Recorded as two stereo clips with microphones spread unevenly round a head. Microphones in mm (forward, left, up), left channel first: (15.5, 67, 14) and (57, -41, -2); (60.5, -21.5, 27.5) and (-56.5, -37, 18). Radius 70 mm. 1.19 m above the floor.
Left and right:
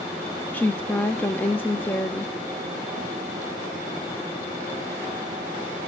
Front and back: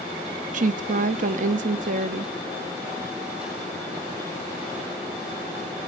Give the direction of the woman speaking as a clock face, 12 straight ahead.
6 o'clock.